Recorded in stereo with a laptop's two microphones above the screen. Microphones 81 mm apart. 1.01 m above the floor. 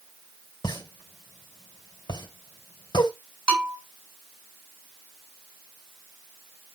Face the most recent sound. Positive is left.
turn(degrees=10)  # may be behind; listen again after turning